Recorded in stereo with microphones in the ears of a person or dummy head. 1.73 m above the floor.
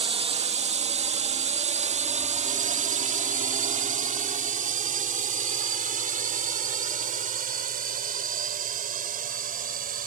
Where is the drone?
30° right (ahead or behind); by 10.1 s 40° right (ahead or behind).